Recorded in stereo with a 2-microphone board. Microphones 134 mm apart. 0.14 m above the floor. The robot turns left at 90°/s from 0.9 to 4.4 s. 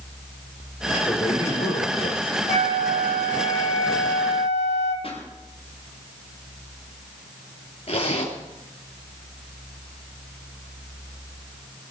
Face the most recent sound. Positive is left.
turn(degrees=55)  # may be behind; listen again after turning